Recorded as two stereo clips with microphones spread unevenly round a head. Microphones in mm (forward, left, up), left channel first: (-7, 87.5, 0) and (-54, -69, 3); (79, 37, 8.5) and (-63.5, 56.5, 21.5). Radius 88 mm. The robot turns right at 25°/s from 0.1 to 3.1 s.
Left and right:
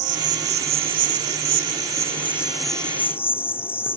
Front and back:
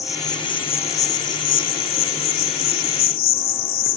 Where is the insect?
80° right; by 4.0 s 5° right.